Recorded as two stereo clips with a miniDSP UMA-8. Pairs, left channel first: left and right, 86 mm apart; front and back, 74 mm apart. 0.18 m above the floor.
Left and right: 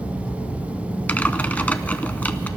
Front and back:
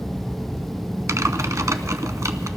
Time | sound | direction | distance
1.1 | typing on a keyboard | 155° left | 0.6 m